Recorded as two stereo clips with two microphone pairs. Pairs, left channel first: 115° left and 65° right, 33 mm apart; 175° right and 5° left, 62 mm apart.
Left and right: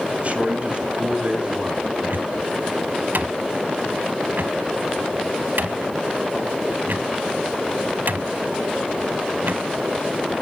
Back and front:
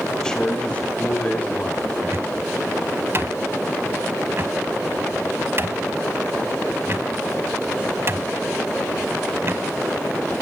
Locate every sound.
0.2 s a man speaking: 100° right, 2.5 m; by 1.9 s 120° right, 3 m
2.0 s a cupboard door: 45° right, 0.7 m